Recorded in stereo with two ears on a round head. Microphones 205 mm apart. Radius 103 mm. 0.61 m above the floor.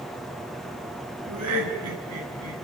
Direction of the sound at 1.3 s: 80° right.